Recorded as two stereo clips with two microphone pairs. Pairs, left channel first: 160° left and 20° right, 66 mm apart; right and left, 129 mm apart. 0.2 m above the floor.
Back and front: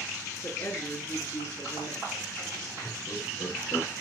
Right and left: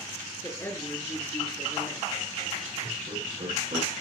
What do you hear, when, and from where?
0.4 s a woman speaking: 155° right, 3.5 m
2.8 s laughter: 125° left, 8 m